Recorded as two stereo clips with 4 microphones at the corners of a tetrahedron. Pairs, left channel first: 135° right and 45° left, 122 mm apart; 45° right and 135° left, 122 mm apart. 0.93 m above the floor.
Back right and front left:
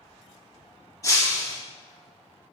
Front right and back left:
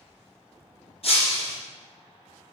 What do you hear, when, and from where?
1.0 s breaking glass: 75° right, 2.5 m